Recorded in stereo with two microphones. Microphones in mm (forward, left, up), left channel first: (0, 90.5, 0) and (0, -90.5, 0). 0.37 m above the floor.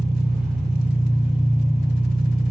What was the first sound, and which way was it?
An engine running, 65° right (ahead or behind).